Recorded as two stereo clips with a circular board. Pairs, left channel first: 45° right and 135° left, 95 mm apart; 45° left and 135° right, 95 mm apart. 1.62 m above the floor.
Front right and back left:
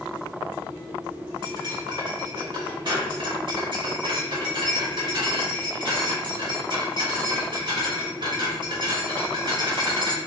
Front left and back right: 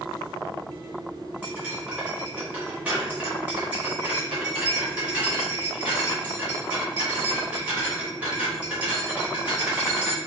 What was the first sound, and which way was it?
Cutlery clinking, 150° left.